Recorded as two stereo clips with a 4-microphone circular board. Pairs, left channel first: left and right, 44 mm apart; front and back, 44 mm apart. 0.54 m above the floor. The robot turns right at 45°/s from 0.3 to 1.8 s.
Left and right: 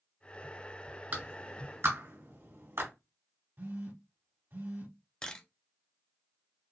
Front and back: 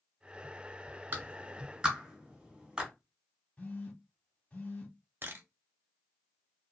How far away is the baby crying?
I don't hear a baby crying.